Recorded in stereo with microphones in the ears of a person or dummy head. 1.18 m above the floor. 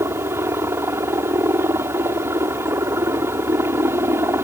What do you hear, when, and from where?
0.0 s a helicopter: 15° right (ahead or behind)